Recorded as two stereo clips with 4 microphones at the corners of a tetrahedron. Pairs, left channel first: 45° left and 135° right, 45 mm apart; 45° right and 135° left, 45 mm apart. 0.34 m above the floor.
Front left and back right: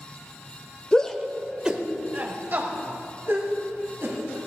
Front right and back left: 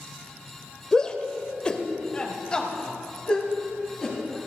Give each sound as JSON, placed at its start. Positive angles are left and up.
{"t": 0.9, "sound": "a shout", "azimuth_deg": 10, "distance_m": 0.9}